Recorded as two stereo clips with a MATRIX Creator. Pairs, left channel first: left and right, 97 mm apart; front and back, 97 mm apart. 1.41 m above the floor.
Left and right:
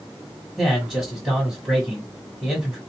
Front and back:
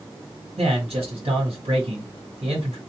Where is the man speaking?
Straight behind, 1.3 m.